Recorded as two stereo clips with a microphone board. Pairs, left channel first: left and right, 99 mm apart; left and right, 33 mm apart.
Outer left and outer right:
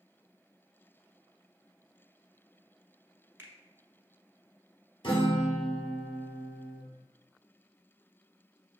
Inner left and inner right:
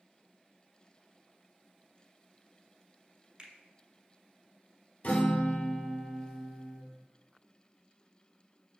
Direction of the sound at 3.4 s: 20° right (ahead or behind).